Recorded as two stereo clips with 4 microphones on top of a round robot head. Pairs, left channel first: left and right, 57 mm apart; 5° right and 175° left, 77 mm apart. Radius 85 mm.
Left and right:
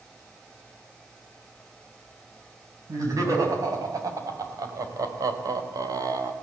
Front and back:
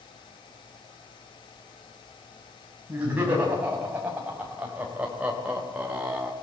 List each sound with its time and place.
2.9 s laughter: 115° right, 6.5 m; by 6.3 s 105° right, 2.5 m